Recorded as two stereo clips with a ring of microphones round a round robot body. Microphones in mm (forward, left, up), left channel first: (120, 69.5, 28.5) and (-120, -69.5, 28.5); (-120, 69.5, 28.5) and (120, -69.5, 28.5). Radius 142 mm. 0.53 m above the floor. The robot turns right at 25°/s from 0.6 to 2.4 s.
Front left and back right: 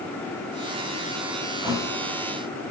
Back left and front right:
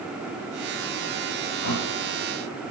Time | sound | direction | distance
1.6 | a thud | 130° left | 7 m